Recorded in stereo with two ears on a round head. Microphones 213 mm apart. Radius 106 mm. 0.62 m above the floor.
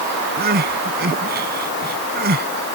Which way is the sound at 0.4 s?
45° right (ahead or behind).